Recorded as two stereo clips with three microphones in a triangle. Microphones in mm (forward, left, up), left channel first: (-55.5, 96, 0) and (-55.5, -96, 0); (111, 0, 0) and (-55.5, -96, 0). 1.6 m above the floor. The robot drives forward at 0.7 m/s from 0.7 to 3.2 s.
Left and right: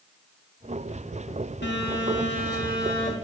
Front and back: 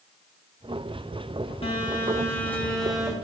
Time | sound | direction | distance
1.6 | a phone buzzing | 85° left | 1.6 m